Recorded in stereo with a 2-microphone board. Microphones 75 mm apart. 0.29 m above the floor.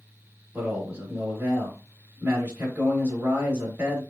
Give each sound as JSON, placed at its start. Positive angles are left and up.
{"t": 0.5, "sound": "a man speaking", "side_deg": -25, "distance_m": 1.5}